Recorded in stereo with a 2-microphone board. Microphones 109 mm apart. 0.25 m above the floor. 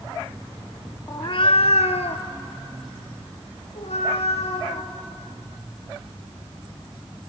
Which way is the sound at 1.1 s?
35° left (ahead or behind).